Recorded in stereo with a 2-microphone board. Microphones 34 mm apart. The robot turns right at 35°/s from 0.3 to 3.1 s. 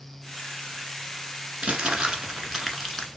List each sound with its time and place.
1.6 s crumpling: 35° right, 1.1 m; by 3.1 s 15° left, 1.1 m